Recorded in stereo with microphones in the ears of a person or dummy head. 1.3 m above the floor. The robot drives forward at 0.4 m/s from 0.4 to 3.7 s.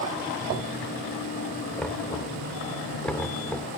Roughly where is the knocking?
Centre.